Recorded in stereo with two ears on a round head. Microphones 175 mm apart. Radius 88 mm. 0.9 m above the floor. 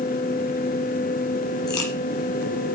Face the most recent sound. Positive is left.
turn(degrees=20)  # may be behind; listen again after turning